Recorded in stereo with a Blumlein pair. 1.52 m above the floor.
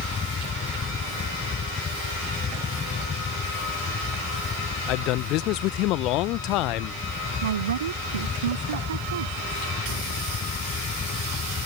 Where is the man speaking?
40° left.